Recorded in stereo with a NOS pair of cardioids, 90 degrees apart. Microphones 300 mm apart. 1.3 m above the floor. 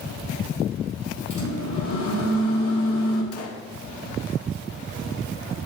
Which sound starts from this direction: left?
A microwave, at 1.3 s.